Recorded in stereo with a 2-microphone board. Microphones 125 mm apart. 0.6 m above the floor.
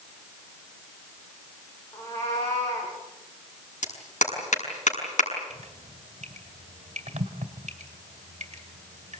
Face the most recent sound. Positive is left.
turn(degrees=-65)  # may be behind; listen again after turning